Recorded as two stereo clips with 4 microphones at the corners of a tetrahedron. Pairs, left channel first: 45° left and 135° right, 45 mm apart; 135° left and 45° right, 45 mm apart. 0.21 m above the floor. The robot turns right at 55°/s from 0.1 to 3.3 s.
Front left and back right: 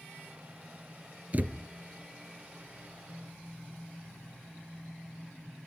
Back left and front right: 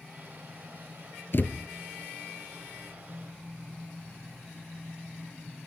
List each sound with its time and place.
1.3 s a thud: 170° left, 1.1 m; by 1.6 s 175° right, 1.1 m